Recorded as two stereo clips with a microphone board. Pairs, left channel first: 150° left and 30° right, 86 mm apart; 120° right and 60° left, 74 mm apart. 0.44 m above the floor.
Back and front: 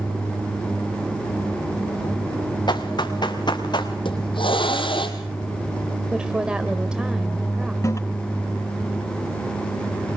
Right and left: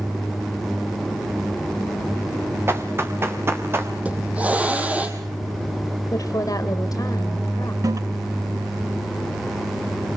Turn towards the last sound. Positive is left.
turn(degrees=100)